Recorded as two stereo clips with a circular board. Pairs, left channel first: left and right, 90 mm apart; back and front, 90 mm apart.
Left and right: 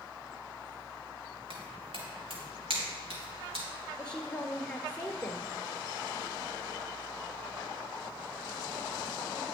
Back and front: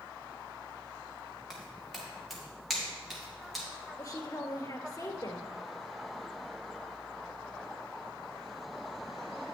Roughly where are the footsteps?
Right.